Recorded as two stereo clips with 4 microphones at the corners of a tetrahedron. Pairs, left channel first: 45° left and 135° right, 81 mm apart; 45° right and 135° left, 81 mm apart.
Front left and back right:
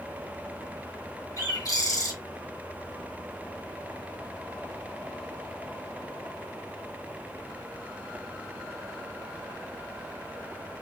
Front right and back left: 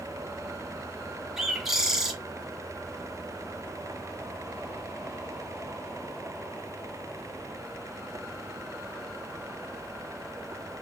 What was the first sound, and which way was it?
A bird, 50° left.